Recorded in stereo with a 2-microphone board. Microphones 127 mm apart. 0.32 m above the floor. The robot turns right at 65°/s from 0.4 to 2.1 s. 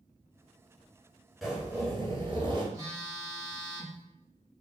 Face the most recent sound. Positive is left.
turn(degrees=-25)  # may be behind; listen again after turning